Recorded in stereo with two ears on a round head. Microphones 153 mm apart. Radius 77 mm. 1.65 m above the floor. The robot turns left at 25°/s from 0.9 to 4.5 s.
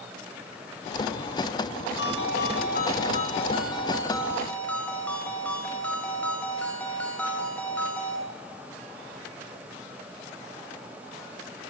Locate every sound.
2.0 s a ringtone: 70° left, 5 m; by 8.2 s 10° left, 5 m